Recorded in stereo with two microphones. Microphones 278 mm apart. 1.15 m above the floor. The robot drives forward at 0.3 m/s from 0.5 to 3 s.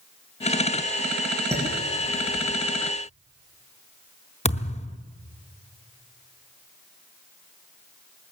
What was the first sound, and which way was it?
Dishes clattering, 10° right (ahead or behind).